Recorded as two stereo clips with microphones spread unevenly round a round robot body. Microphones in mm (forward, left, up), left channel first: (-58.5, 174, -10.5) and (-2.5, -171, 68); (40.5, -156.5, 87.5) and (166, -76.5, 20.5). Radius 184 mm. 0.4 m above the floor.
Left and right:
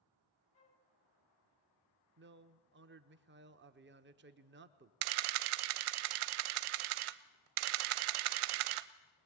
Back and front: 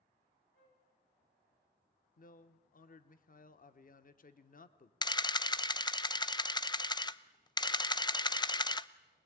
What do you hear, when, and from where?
0.5 s a flute: 165° left, 2.5 m
2.2 s a man speaking: 135° right, 1.0 m
5.0 s a camera shutter: 80° right, 0.7 m